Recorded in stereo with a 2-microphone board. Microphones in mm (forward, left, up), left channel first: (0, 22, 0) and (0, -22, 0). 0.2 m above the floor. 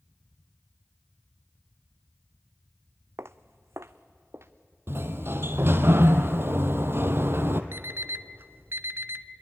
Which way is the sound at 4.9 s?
60° right (ahead or behind).